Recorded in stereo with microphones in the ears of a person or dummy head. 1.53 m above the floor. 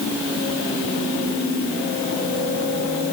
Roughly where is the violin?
No violin in this recording.